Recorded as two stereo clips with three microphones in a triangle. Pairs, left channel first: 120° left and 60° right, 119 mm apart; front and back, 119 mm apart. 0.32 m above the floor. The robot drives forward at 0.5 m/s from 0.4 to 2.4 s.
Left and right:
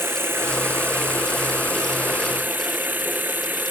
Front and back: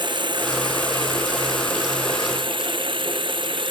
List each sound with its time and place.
0.0 s running water: 130° right; by 3.7 s 135° right